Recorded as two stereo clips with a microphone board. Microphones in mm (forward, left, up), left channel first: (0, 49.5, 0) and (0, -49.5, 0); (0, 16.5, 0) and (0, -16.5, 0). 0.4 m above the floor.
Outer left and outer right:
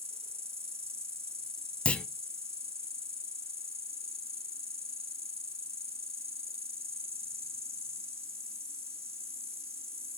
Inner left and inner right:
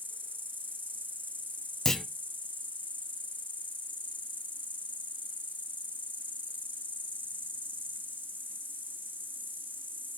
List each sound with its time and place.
0.0 s an insect: 80° right, 1.5 m
1.9 s a clunk: 10° left (ahead or behind), 0.6 m